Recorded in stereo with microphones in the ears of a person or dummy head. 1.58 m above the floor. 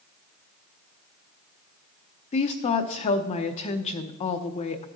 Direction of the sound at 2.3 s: 30° left (ahead or behind).